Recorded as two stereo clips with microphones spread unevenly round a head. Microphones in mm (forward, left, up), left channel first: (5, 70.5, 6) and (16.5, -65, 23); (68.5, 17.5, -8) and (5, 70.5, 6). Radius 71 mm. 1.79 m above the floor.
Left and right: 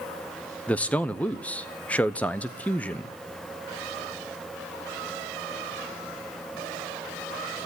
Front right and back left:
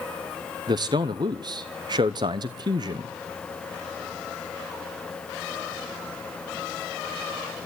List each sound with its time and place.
0.7 s a man speaking: straight behind, 0.8 m